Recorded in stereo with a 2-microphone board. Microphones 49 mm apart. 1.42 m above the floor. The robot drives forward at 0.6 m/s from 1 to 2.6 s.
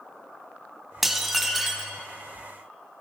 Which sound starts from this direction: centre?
Dishes clattering, at 1.0 s.